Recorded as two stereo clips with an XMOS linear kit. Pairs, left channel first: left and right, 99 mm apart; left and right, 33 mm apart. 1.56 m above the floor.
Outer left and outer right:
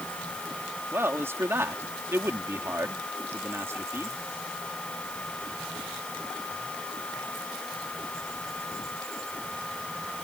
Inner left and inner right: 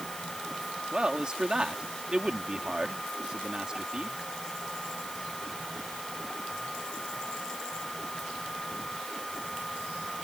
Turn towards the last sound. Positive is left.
turn(degrees=-25)  # may be behind; listen again after turning